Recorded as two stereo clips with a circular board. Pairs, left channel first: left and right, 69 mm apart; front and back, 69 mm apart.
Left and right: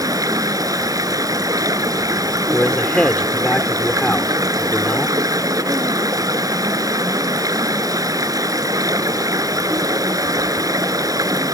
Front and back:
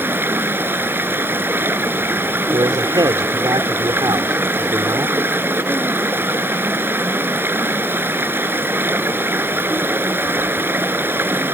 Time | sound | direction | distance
0.0 | running water | 120° right | ?
2.5 | a man speaking | 170° left | ?